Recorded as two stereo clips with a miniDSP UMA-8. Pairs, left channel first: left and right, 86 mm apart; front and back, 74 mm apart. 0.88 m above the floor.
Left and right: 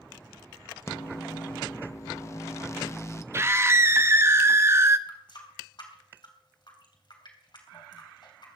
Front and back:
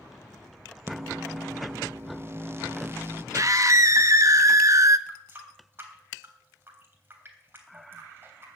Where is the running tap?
120° left, 3 m.